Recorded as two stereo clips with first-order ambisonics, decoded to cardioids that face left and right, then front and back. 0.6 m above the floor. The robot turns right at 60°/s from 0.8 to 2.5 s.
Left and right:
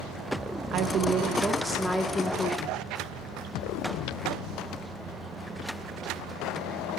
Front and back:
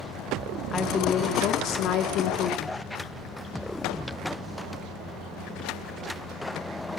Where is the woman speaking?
60° right, 0.8 m; by 2.8 s 40° left, 0.8 m.